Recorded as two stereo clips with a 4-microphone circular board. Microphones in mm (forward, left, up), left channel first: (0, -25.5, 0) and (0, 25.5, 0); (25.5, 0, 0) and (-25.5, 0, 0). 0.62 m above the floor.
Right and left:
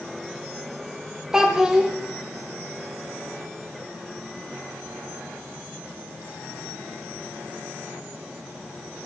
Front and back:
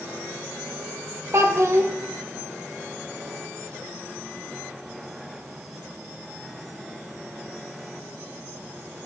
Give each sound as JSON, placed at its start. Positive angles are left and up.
{"t": 1.3, "sound": "a child speaking", "azimuth_deg": 165, "distance_m": 0.9}